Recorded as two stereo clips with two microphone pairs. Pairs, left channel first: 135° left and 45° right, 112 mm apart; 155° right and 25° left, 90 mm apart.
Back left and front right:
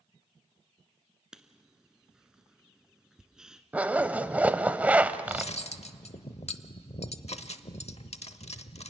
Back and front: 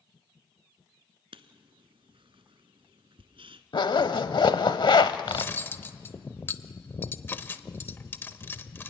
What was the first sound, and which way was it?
Writing, 40° left.